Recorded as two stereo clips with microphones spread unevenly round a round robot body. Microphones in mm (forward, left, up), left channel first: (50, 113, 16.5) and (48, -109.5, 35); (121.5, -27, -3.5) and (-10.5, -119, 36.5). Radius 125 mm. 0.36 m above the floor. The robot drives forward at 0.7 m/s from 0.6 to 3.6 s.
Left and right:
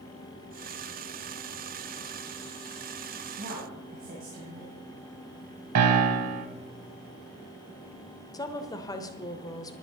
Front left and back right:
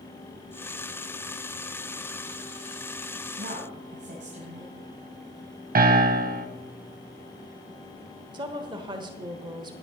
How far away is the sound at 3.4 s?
About 2.5 m.